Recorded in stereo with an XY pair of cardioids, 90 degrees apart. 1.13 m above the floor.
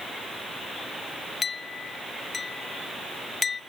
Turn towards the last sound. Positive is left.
turn(degrees=40)